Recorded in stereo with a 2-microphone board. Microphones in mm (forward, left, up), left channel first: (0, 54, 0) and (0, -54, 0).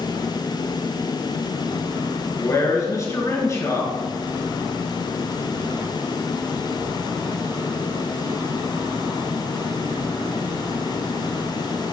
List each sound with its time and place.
2.4 s a man speaking: 30° left (ahead or behind), 2 m